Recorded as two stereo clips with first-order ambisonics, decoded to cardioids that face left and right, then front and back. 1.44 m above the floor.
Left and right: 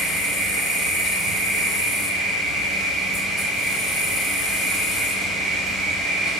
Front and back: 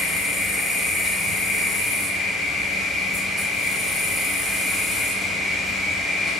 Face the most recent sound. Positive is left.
turn(degrees=80)